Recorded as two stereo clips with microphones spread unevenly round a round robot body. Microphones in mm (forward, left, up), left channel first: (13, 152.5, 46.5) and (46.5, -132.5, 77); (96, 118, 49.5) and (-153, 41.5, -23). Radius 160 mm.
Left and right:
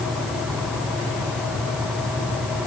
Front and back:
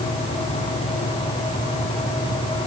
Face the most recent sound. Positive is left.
No sound to turn to.